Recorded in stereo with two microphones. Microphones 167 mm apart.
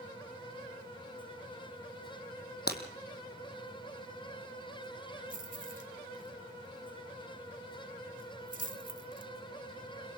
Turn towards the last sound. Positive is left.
turn(degrees=-55)  # may be behind; listen again after turning